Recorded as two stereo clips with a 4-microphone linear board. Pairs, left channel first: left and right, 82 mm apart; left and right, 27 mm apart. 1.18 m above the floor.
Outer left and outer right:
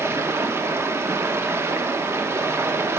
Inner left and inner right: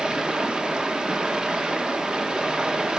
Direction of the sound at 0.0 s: 30° right (ahead or behind).